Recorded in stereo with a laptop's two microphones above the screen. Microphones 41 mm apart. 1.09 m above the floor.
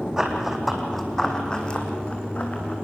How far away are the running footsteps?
About 3 m.